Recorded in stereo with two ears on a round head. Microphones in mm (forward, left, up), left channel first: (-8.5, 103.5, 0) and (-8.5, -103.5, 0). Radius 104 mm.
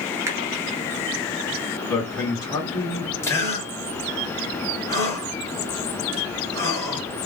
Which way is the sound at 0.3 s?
10° right (ahead or behind).